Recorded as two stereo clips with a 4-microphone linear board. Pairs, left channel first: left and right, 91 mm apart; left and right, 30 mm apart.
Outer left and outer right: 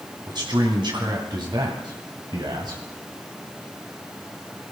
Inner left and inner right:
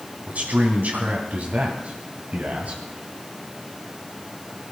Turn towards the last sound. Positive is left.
turn(degrees=-50)  # may be behind; listen again after turning